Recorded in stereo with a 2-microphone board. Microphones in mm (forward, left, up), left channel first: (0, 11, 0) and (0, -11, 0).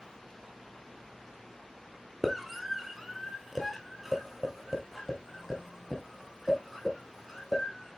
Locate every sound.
2.2 s a scream: 10° right (ahead or behind), 1.4 m; by 8.0 s 5° right (ahead or behind), 4.5 m